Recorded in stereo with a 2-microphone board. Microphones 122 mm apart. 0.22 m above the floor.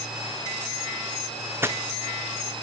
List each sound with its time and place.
1.6 s footsteps: 15° right (ahead or behind), 0.8 m; by 2.6 s 60° right (ahead or behind), 1.2 m